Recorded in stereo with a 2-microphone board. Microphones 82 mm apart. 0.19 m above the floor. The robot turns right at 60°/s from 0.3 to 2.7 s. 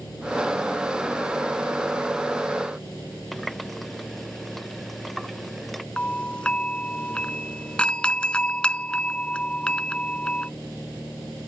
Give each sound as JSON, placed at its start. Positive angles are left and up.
{"t": 3.3, "sound": "a running tap", "side_deg": 0}
{"t": 6.0, "sound": "a doorbell", "side_deg": 10}